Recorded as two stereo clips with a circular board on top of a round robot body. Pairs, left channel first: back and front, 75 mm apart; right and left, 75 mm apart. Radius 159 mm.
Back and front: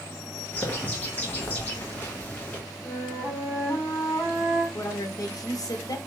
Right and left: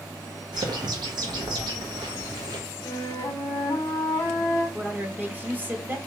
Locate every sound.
0.5 s a bird: 110° left, 0.6 m
2.9 s a flute: 130° right, 0.6 m
4.7 s a woman speaking: 150° left, 1.0 m